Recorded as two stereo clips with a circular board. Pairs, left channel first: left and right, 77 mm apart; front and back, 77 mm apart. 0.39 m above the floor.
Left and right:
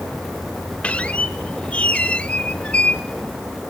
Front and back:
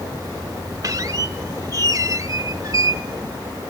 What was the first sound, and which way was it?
A squeak, 160° left.